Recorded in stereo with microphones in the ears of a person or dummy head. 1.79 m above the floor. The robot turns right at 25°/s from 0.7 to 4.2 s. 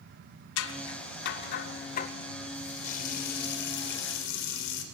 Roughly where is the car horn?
I don't hear a car horn.